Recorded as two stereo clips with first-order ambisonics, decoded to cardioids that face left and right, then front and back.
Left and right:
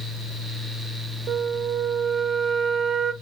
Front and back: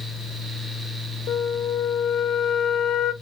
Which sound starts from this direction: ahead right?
A flute, at 1.3 s.